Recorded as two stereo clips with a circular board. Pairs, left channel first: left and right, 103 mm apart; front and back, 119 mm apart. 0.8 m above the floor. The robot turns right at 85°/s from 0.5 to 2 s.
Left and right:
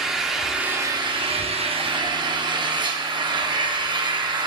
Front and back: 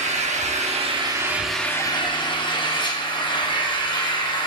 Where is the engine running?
175° right, 0.8 m; by 4.5 s 50° right, 0.8 m.